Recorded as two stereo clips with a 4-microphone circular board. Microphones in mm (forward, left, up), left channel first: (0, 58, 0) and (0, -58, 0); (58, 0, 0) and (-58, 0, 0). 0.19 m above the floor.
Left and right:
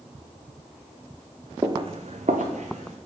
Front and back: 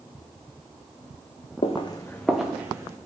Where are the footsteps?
30° right, 0.6 m; by 3.0 s 115° right, 1.0 m.